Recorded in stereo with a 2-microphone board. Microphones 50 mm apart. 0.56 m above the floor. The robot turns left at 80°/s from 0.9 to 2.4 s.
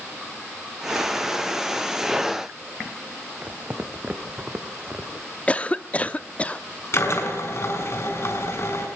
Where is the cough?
25° left (ahead or behind), 0.8 m.